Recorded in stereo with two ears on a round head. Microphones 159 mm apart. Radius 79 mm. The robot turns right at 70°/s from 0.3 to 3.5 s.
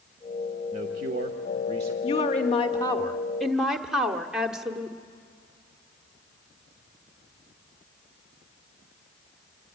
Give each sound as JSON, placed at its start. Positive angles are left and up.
{"t": 0.7, "sound": "a man speaking", "azimuth_deg": -125, "distance_m": 1.2}
{"t": 2.0, "sound": "a woman speaking", "azimuth_deg": 80, "distance_m": 1.2}